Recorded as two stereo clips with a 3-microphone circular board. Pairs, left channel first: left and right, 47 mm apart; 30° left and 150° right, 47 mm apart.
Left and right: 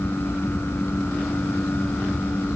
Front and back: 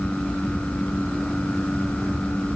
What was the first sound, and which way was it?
Only background noise.